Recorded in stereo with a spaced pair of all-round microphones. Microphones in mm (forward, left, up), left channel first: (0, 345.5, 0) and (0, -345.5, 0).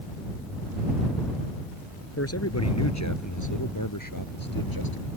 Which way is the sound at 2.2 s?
20° left (ahead or behind).